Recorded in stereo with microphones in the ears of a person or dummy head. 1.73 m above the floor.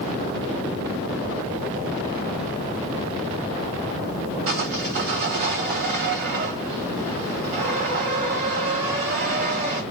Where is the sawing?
40° right (ahead or behind), 1.5 m.